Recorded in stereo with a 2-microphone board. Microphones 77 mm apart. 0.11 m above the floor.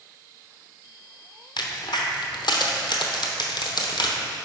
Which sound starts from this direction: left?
A crack, at 1.6 s.